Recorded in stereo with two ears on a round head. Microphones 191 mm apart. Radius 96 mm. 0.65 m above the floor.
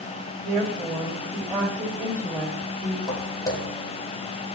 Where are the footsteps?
20° left (ahead or behind), 1.4 m.